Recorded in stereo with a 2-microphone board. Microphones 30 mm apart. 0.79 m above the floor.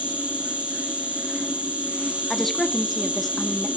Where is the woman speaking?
10° left (ahead or behind), 1.4 m.